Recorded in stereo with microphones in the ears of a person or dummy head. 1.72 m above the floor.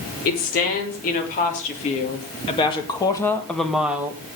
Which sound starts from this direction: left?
A woman speaking, at 0.2 s.